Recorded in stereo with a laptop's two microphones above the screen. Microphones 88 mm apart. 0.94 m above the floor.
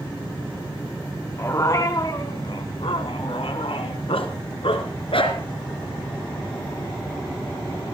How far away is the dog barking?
About 2.5 m.